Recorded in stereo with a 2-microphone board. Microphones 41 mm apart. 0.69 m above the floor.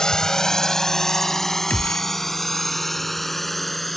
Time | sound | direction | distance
0.0 | a drone | 15° left (ahead or behind) | ?
1.7 | a gunshot | 50° left (ahead or behind) | ?